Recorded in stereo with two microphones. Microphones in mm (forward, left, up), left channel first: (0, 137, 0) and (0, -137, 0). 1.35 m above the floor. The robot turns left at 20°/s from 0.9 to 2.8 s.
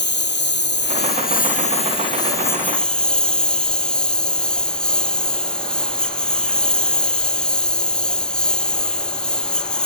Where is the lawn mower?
40° left; by 9.9 s 5° left.